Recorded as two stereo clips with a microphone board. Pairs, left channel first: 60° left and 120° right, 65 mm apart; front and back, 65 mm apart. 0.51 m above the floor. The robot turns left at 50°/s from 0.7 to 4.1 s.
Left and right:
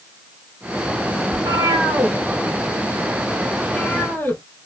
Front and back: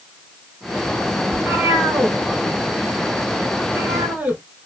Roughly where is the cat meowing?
Right.